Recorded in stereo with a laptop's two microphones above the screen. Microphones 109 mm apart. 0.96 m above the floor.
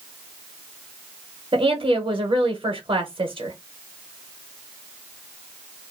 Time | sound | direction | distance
1.5 | a woman speaking | 45° right (ahead or behind) | 0.7 m